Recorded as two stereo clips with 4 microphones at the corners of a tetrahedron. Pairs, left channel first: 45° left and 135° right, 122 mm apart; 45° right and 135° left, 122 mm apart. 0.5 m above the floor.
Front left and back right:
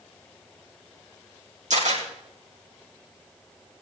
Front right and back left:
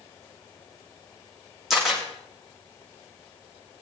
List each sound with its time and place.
1.7 s a camera shutter: 135° right, 5 m